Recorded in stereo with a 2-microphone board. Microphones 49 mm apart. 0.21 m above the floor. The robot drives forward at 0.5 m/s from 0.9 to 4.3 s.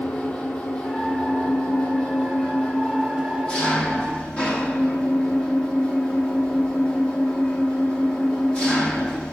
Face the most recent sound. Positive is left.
turn(degrees=25)  # may be behind; listen again after turning